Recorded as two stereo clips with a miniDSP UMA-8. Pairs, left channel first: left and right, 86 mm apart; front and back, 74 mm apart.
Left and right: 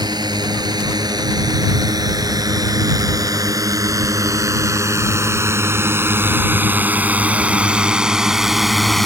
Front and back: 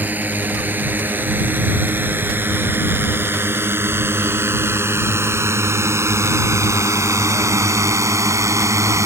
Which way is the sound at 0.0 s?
115° right.